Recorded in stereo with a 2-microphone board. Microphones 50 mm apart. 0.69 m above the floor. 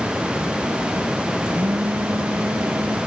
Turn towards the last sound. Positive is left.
turn(degrees=-55)  # may be behind; listen again after turning